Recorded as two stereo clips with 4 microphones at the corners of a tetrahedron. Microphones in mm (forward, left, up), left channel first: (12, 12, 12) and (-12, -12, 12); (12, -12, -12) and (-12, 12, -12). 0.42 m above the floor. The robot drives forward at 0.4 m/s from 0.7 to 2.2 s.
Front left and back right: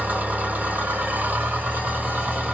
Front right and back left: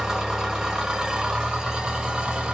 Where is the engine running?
155° right, 1.0 m; by 2.5 s 165° right, 1.5 m.